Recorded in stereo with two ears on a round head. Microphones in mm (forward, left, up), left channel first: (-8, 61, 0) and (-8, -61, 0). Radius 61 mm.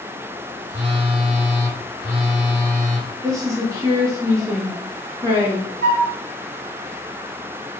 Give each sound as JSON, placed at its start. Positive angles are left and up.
{"t": 0.7, "sound": "a phone buzzing", "side_deg": -70, "distance_m": 1.9}
{"t": 3.2, "sound": "a woman speaking", "side_deg": -25, "distance_m": 1.0}
{"t": 5.8, "sound": "a flute", "side_deg": -80, "distance_m": 1.7}